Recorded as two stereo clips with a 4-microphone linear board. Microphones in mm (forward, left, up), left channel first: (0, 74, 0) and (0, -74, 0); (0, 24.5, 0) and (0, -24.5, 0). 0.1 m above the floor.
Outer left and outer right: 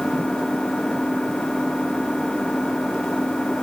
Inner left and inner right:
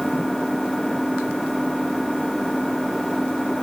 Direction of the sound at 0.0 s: 5° left (ahead or behind).